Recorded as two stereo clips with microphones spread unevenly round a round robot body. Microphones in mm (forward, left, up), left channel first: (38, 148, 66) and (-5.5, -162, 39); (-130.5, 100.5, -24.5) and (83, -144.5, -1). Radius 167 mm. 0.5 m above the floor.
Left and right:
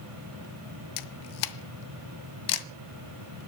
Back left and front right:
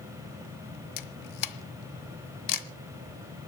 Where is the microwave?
I don't hear a microwave.